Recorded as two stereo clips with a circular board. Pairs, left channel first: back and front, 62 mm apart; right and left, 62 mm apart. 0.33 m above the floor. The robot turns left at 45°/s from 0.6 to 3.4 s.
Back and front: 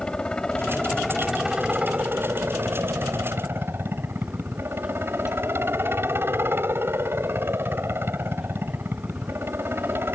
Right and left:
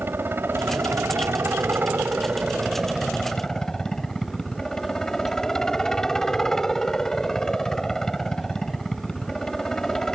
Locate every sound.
0.0 s a helicopter: 115° left; by 10.2 s 15° right